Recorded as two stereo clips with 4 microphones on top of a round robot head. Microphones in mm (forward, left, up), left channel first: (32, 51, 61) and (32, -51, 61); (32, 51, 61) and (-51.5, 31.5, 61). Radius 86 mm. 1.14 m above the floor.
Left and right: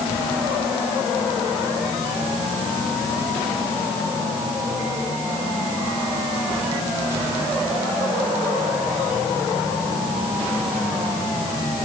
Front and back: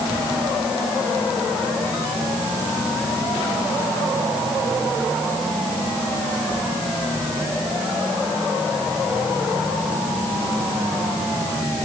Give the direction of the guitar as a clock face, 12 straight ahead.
I don't hear a guitar.